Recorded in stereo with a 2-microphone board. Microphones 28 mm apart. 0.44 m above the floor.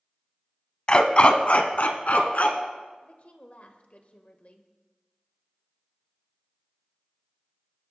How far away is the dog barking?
About 0.9 m.